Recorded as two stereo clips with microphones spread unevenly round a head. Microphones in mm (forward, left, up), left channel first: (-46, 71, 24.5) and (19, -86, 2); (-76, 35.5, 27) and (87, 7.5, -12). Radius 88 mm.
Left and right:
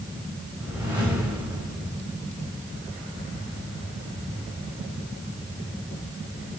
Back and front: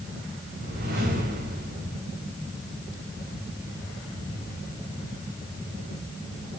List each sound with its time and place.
0.6 s a whoosh: 15° left, 6 m